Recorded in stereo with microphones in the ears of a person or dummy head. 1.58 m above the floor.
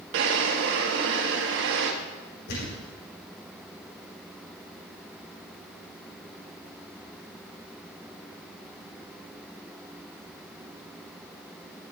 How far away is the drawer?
About 1.4 m.